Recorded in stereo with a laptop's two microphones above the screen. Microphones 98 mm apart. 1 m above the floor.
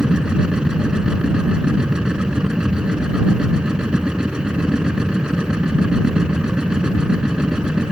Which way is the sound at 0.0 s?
5° right (ahead or behind).